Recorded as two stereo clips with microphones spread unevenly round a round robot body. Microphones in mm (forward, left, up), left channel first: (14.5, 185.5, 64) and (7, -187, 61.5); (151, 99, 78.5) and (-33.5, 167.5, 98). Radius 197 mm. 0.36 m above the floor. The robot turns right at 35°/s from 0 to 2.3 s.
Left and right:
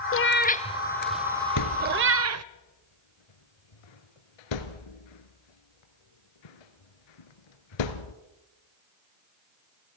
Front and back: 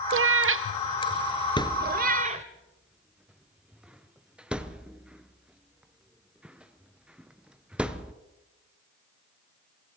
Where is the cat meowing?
145° left, 0.6 m; by 2.5 s 140° right, 0.6 m.